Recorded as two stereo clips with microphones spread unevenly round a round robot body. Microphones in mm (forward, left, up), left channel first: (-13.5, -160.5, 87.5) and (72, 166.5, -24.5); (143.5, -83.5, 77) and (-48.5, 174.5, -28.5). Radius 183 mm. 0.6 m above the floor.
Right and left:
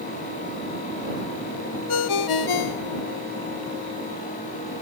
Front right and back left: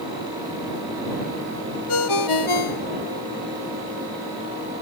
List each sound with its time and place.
1.9 s a ringtone: 80° right